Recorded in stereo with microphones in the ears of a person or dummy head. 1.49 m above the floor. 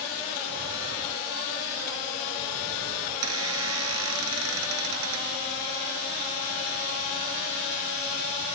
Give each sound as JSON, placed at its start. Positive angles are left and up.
{"t": 3.1, "sound": "a squeak", "side_deg": -80}